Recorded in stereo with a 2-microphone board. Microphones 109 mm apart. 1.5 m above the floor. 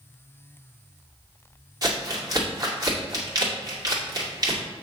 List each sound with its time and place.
1.8 s crumpling: 40° right (ahead or behind), 2 m